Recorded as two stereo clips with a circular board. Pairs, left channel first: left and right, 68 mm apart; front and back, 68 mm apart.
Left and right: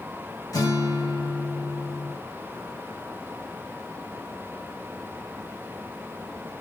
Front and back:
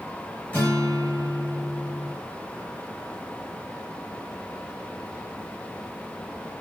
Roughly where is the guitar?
Ahead left.